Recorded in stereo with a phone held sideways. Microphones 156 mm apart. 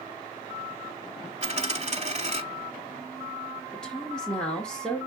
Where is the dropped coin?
45° right (ahead or behind), 1.0 m.